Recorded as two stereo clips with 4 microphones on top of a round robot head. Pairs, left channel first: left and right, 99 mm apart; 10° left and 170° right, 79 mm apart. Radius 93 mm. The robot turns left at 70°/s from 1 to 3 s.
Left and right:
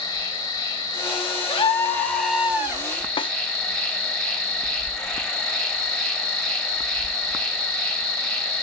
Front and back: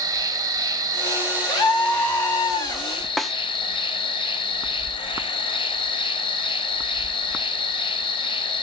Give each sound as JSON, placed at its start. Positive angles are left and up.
{"t": 0.0, "sound": "an insect", "azimuth_deg": 145, "distance_m": 1.5}
{"t": 1.5, "sound": "a scream", "azimuth_deg": 55, "distance_m": 2.5}
{"t": 3.2, "sound": "a snare drum", "azimuth_deg": 100, "distance_m": 0.6}